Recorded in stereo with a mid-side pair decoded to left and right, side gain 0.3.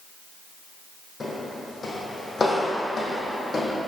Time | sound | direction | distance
1.2 | footsteps | 50° left | 3 m